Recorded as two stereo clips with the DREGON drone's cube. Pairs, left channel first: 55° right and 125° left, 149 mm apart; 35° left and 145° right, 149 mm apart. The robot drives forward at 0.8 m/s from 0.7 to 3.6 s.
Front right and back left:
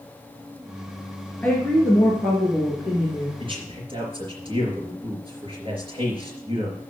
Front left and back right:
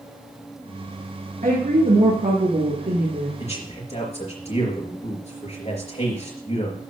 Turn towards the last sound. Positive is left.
turn(degrees=75)